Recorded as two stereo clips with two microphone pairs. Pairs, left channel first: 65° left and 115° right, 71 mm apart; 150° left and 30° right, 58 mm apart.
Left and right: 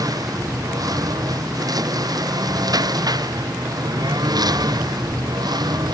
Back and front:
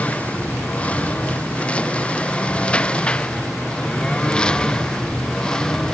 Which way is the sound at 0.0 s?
145° right.